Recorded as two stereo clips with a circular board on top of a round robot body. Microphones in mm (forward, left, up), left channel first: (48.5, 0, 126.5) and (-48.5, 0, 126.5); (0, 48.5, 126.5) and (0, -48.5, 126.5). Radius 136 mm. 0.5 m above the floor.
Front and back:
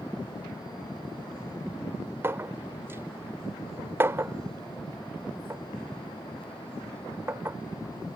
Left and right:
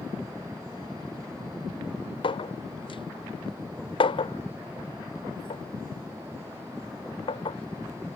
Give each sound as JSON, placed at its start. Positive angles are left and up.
{"t": 2.2, "sound": "a clink", "azimuth_deg": 115}